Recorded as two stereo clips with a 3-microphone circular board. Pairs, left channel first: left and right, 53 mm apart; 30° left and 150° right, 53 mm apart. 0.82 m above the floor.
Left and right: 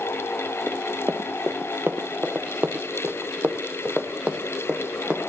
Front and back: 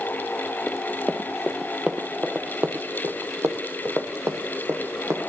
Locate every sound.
0.7 s running footsteps: 50° right, 1.2 m; by 5.3 s 160° right, 2.5 m